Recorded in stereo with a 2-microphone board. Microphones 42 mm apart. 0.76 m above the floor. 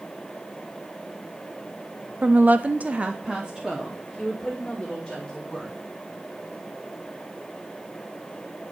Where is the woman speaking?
35° right (ahead or behind), 0.6 m; by 5.8 s 5° right (ahead or behind), 2.5 m.